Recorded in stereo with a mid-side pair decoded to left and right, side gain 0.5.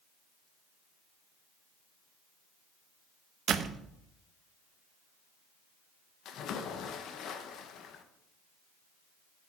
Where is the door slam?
55° right, 1.0 m.